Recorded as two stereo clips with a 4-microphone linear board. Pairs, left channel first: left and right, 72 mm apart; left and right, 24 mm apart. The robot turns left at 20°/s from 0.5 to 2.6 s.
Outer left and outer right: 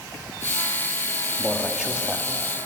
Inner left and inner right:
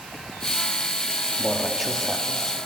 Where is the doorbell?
No doorbell in this recording.